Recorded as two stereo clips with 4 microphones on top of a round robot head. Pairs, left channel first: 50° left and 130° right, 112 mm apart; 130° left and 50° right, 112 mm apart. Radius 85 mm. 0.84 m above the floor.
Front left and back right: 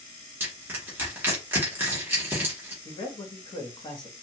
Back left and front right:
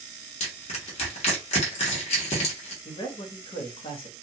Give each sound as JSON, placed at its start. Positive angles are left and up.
{"t": 0.4, "sound": "crushing", "azimuth_deg": 160, "distance_m": 1.1}
{"t": 2.9, "sound": "a man speaking", "azimuth_deg": 95, "distance_m": 1.2}